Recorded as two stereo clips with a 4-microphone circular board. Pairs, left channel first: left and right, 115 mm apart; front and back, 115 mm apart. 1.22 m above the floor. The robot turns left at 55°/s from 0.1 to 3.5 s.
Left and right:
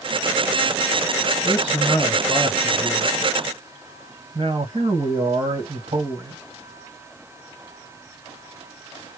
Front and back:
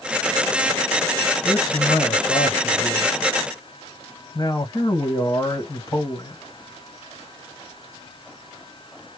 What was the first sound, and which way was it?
A man speaking, 60° left.